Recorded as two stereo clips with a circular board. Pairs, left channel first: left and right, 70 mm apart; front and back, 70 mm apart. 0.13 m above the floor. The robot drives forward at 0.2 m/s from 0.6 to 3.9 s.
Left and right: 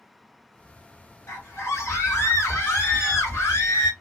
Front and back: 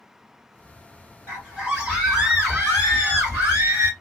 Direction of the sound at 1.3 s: 115° left.